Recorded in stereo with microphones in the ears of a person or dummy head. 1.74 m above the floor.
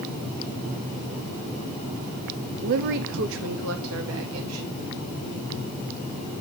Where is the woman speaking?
40° right (ahead or behind), 0.6 m; by 4.7 s 80° right, 2.5 m.